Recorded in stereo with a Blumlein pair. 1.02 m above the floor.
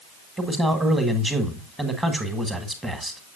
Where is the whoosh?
No whoosh in this recording.